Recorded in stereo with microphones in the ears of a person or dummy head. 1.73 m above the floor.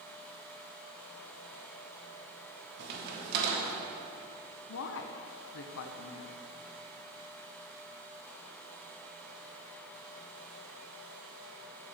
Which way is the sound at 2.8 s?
65° right (ahead or behind).